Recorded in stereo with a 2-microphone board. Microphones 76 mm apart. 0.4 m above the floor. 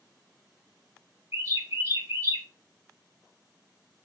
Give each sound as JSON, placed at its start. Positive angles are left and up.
{"t": 1.3, "sound": "a bird", "side_deg": -40, "distance_m": 0.7}